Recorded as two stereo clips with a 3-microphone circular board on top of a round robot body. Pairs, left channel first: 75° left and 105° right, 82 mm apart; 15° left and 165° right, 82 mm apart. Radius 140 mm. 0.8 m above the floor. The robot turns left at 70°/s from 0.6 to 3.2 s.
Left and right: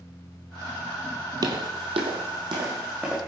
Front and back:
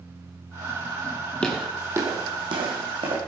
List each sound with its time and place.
1.4 s footsteps: 65° right, 1.1 m; by 3.2 s 175° left, 3.5 m